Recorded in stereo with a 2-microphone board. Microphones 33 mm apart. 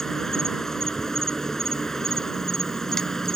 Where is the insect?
15° left (ahead or behind).